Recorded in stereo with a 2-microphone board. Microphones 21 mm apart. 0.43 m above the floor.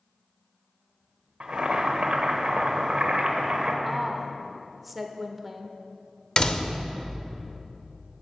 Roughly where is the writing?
No writing in this recording.